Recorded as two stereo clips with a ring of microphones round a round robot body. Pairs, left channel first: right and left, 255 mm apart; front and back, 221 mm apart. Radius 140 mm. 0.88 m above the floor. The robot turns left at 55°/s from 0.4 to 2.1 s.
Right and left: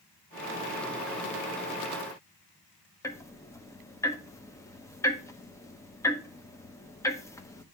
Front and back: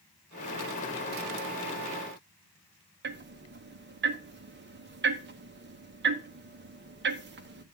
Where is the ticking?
165° right, 1.0 m.